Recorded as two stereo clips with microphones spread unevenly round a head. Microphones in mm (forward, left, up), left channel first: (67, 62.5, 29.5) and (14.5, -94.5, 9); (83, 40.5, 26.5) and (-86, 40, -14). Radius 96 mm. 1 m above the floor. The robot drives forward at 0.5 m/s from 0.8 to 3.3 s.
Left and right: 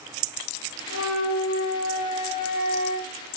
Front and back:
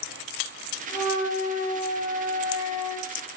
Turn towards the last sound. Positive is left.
turn(degrees=115)